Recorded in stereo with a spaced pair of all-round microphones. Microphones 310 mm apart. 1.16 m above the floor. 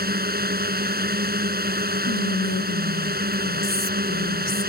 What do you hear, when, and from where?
0.0 s a drone: 30° right (ahead or behind)
2.0 s whispering: 55° left (ahead or behind)